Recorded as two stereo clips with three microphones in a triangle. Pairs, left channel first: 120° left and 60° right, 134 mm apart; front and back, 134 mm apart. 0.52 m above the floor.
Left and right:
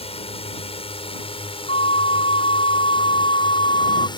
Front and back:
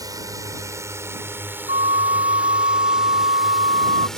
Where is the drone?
125° left; by 4.2 s 85° left.